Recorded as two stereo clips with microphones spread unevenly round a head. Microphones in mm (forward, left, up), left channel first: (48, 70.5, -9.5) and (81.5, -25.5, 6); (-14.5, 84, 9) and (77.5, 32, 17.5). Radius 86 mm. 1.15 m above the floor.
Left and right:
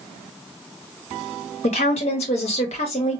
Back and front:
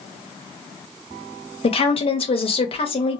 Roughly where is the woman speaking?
Behind left.